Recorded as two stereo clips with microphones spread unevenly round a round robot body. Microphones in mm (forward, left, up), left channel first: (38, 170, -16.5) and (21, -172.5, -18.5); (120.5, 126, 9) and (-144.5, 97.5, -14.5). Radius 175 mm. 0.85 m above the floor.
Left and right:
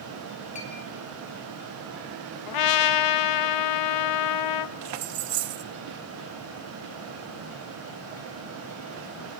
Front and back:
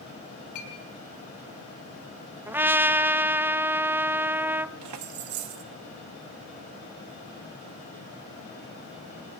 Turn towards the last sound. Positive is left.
turn(degrees=-140)